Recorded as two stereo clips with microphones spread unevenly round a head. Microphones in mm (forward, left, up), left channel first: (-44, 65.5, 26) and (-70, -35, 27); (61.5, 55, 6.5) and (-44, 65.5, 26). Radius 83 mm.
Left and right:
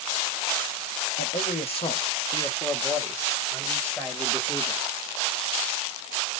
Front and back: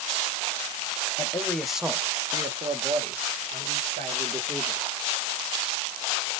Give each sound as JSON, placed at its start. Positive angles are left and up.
{"t": 1.2, "sound": "a man speaking", "azimuth_deg": 55, "distance_m": 0.8}